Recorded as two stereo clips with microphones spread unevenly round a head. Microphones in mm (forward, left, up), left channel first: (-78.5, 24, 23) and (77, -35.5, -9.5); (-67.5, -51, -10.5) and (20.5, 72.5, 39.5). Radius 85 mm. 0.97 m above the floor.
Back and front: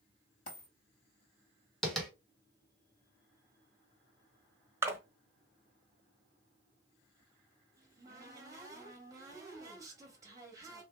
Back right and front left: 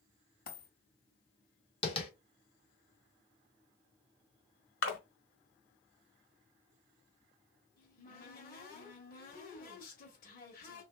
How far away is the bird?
No bird in this recording.